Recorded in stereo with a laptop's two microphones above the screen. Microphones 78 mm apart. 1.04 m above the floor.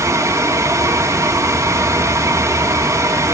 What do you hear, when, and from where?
0.0 s a fan: 40° right (ahead or behind), 1.7 m